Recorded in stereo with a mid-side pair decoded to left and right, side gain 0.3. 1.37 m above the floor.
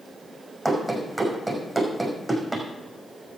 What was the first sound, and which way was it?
Running footsteps, 20° right.